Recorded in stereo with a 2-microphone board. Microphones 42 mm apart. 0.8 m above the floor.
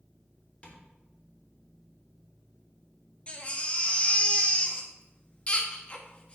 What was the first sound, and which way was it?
Tapping, 30° left (ahead or behind).